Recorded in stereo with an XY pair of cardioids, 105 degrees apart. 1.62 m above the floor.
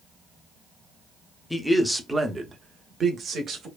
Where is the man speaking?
15° left, 0.7 m; by 3.7 s 55° right, 1.1 m.